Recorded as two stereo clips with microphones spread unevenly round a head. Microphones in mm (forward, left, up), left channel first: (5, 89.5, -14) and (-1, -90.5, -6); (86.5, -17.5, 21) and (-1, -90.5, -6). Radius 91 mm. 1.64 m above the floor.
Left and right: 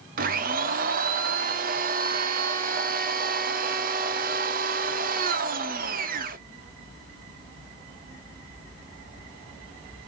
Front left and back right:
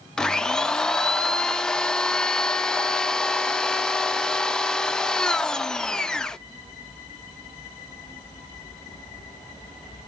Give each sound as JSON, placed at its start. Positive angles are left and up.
{"t": 0.2, "sound": "a blender", "azimuth_deg": -45, "distance_m": 0.5}